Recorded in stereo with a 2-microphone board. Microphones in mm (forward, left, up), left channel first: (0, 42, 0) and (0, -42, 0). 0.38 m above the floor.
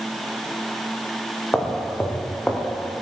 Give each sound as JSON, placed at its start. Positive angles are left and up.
{"t": 1.5, "sound": "footsteps", "side_deg": 20, "distance_m": 5.5}